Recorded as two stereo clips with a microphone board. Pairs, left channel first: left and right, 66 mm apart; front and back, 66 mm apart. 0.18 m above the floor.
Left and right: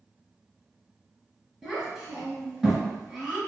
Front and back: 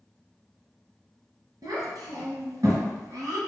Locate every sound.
1.6 s a child speaking: 175° right, 1.3 m